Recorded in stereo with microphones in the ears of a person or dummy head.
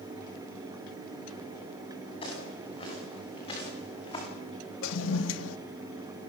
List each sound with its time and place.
2.2 s footsteps: 30° left (ahead or behind), 9.5 m
4.8 s a toilet flushing: 80° left, 1.2 m